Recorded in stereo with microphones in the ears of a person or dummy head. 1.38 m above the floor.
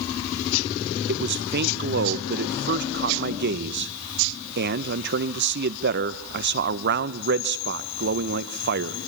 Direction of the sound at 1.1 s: 50° right (ahead or behind).